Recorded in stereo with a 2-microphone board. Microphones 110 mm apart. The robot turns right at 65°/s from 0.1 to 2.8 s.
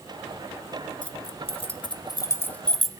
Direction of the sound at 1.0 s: 50° left (ahead or behind).